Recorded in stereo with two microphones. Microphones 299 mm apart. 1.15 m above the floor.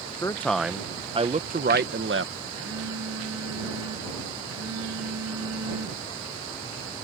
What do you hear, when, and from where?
0.2 s a man speaking: 10° left (ahead or behind); by 2.3 s 45° right (ahead or behind)
2.5 s a phone buzzing: 60° right (ahead or behind)